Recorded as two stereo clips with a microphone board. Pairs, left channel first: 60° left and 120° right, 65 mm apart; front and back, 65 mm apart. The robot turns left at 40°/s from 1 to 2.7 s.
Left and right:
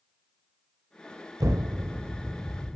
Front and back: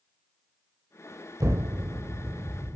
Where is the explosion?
145° right, 0.6 m; by 2.8 s 165° left, 0.6 m.